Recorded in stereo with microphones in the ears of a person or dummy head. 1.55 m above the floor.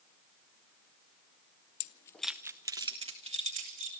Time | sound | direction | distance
1.8 | keys jangling | 45° left (ahead or behind) | 0.6 m